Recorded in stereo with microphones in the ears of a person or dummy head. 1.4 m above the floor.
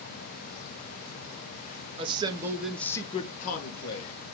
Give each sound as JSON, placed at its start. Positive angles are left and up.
{"t": 2.0, "sound": "a man speaking", "side_deg": -30, "distance_m": 0.8}